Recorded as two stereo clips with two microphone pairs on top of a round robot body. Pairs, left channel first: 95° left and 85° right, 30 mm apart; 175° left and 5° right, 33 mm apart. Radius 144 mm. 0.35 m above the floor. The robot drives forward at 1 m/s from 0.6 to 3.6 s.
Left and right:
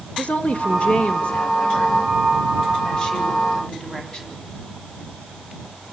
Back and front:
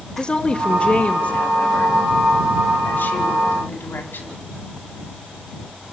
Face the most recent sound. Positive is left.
turn(degrees=155)